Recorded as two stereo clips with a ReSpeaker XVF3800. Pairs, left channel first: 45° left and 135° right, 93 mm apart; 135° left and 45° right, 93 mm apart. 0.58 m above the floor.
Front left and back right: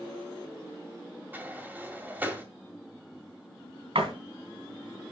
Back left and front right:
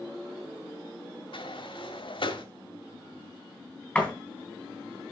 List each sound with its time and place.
1.3 s a sliding door: 155° left, 1.8 m
4.0 s a door slam: 145° right, 3 m